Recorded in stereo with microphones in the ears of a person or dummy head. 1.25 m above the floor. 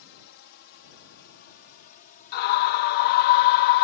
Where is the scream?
50° left (ahead or behind).